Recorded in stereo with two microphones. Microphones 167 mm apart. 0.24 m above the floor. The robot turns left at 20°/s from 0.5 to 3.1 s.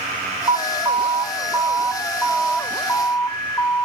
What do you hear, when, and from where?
0.5 s an alarm: 150° right, 1.5 m; by 3.9 s 160° left, 1.5 m